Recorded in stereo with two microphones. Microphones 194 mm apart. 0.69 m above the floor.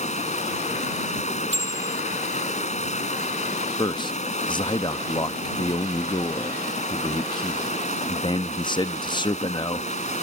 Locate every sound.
0.0 s running water: 35° left (ahead or behind)
1.5 s a bicycle bell: 80° right
3.8 s a man speaking: 25° left (ahead or behind)